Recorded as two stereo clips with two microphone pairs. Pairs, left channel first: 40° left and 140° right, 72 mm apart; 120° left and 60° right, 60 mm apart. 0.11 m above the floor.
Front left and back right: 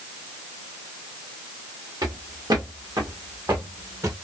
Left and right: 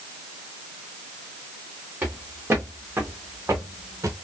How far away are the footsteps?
About 2 m.